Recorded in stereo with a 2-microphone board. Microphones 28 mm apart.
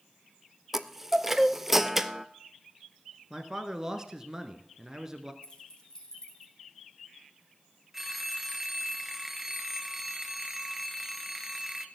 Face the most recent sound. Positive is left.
turn(degrees=-5)  # may be behind; listen again after turning